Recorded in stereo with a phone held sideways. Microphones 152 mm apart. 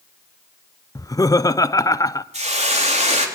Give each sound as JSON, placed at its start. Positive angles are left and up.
{"t": 0.9, "sound": "laughter", "side_deg": 20, "distance_m": 0.6}
{"t": 2.3, "sound": "a hiss", "side_deg": -45, "distance_m": 3.0}